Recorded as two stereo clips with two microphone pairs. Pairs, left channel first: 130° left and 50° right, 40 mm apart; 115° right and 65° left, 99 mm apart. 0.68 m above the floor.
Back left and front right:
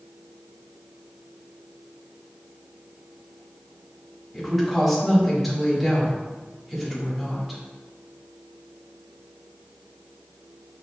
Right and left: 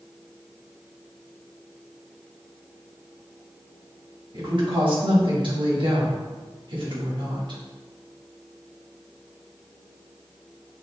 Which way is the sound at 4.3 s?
40° left.